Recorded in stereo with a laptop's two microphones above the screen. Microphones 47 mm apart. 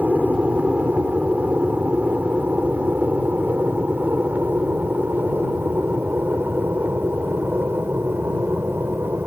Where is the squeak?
I don't hear a squeak.